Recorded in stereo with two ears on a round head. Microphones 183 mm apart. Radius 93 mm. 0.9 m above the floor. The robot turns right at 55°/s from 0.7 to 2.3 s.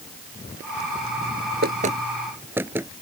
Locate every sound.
1.6 s knocking: 50° right (ahead or behind); by 2.9 s 10° right (ahead or behind)